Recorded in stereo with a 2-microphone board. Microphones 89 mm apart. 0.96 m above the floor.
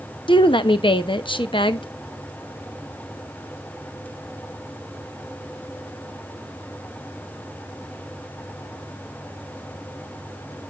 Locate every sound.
0.3 s a woman speaking: 70° left (ahead or behind), 0.9 m